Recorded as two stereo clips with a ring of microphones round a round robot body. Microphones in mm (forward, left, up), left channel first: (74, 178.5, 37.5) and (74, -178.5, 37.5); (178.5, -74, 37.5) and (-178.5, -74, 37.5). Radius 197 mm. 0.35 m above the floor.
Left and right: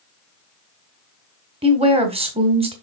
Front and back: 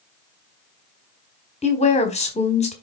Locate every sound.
1.6 s a woman speaking: 40° right, 1.4 m